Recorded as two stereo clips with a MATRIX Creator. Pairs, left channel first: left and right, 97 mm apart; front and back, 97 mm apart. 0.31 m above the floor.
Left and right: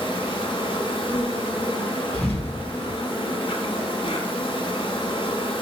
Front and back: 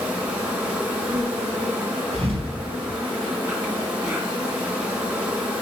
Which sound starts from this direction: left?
An insect, at 0.0 s.